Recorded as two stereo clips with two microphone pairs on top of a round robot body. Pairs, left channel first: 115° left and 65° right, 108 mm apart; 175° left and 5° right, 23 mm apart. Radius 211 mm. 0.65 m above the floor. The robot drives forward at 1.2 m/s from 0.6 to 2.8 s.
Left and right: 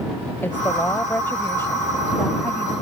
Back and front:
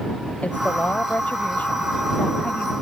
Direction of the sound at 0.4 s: 175° right.